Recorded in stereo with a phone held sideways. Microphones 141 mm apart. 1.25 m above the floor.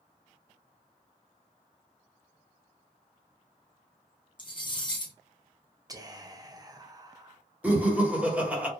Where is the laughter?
10° right (ahead or behind), 1.0 m.